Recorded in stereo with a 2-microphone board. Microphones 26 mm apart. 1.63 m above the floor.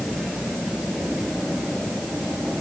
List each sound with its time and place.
Only background noise.